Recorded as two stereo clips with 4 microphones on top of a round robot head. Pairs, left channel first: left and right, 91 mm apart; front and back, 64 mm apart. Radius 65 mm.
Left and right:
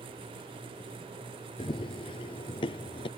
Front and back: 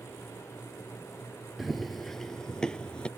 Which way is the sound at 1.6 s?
90° left.